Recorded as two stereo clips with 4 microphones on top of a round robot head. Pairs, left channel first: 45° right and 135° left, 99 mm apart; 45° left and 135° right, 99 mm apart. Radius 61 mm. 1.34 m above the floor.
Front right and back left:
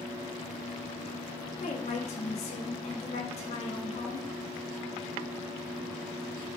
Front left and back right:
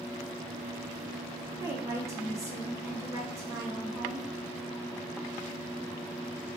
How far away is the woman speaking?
About 1.0 m.